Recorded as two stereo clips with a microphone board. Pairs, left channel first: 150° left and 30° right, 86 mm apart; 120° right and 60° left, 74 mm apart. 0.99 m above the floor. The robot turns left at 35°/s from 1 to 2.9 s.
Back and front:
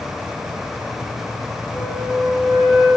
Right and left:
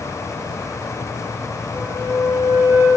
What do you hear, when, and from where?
1.7 s a flute: 100° left, 7.5 m; by 2.9 s 60° left, 7.5 m